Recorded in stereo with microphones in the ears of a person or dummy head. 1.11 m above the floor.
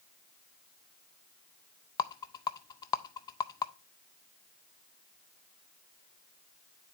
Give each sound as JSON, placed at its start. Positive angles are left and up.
{"t": 2.0, "sound": "a rattle", "side_deg": 20, "distance_m": 0.5}